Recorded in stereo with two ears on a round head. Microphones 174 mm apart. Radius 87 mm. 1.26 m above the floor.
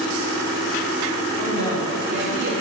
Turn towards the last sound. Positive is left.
turn(degrees=-55)  # may be behind; listen again after turning